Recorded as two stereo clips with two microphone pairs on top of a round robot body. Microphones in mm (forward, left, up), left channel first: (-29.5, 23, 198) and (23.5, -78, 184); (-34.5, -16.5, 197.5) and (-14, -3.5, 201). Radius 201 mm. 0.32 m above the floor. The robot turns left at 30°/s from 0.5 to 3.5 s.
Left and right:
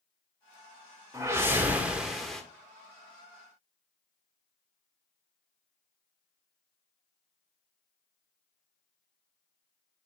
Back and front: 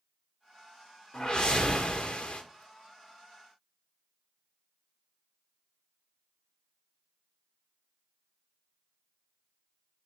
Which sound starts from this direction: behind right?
A whoosh, at 1.1 s.